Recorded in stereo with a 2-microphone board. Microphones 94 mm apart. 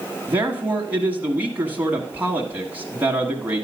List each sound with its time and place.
0.3 s a man speaking: 20° right (ahead or behind), 1.1 m